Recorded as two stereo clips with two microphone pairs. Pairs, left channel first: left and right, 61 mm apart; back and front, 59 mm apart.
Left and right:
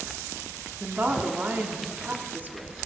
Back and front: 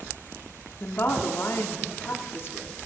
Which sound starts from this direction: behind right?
A woman speaking, at 0.8 s.